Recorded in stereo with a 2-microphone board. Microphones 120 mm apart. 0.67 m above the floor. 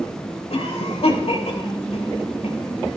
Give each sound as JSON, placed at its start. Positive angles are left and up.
{"t": 0.5, "sound": "a cough", "side_deg": 60, "distance_m": 5.0}